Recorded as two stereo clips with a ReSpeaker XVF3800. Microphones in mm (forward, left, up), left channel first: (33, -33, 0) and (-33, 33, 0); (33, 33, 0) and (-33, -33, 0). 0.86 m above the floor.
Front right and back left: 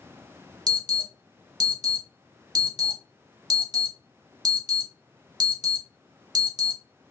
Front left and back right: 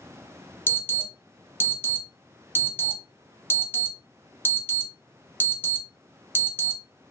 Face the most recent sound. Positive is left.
turn(degrees=105)